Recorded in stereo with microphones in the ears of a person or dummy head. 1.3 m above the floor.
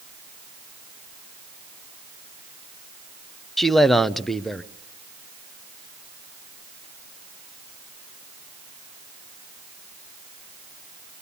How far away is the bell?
No bell in this recording.